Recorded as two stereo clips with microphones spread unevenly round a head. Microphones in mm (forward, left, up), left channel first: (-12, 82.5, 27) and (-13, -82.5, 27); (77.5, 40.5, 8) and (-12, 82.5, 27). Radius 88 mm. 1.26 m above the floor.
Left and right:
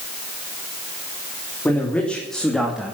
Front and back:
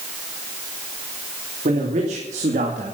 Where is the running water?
I don't hear running water.